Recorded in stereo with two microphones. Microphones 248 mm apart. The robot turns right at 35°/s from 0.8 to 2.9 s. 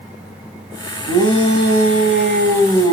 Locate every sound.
1.1 s a shout: 85° right, 5 m; by 2.9 s 25° right, 5 m